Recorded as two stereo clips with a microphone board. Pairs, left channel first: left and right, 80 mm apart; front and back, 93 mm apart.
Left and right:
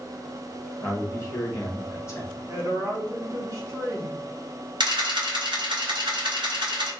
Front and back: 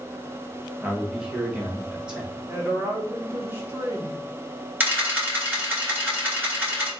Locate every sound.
0.8 s a man speaking: 105° left, 1.1 m
2.5 s a woman speaking: 120° right, 1.3 m
4.8 s a camera shutter: 110° right, 2 m